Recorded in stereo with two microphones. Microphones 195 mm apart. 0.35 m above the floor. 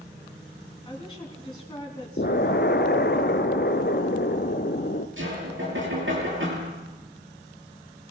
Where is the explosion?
60° left (ahead or behind), 1.1 m.